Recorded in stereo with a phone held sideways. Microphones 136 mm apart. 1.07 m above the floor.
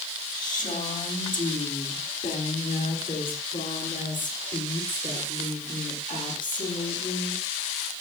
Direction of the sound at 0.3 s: 80° left.